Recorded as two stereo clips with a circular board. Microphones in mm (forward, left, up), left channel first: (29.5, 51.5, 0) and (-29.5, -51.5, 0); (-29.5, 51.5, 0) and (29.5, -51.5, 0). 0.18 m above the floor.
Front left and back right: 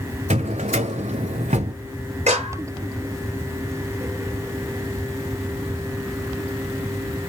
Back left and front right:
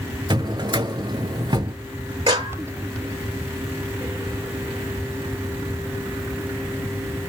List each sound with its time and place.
0.3 s a drawer: 110° right, 0.7 m
2.3 s a clap: 105° right, 4 m